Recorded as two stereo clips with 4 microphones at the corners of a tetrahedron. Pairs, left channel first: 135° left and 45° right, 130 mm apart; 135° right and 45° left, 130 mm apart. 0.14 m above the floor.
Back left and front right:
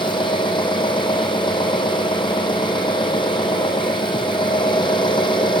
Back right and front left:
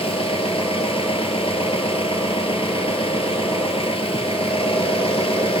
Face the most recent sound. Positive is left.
turn(degrees=-175)